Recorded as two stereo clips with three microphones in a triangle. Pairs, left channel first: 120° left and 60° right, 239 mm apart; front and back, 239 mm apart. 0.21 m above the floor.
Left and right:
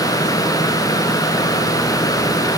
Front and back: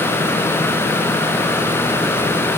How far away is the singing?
No singing in this recording.